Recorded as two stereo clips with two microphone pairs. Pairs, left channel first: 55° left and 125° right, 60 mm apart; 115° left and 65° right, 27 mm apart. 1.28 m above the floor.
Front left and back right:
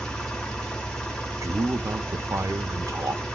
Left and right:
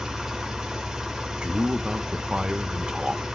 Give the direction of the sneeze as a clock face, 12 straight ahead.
No sneeze in this recording.